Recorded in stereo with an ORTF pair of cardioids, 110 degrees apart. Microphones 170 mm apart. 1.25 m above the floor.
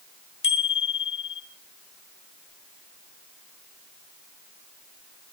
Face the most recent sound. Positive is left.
turn(degrees=35)